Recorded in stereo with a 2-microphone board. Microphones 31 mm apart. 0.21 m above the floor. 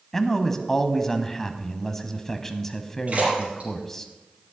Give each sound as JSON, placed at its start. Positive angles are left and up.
{"t": 0.1, "sound": "a man speaking", "side_deg": 15, "distance_m": 1.0}
{"t": 3.1, "sound": "a splash", "side_deg": -45, "distance_m": 6.0}